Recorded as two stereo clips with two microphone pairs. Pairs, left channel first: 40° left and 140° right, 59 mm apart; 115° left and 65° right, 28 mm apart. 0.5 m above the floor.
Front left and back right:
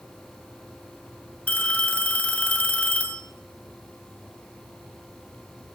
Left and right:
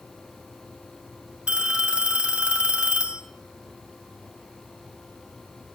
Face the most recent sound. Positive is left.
turn(degrees=-25)